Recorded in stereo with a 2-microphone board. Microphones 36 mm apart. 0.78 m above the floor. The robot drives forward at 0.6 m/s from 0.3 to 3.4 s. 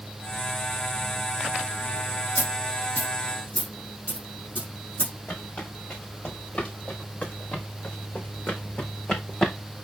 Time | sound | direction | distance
2.4 | a dropped coin | 55° left (ahead or behind) | 6 m
5.3 | footsteps | 40° left (ahead or behind) | 4.5 m